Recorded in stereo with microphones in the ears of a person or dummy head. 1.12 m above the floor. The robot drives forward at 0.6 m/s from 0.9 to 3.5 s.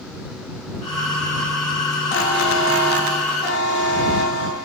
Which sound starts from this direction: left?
A buzzer, at 2.1 s.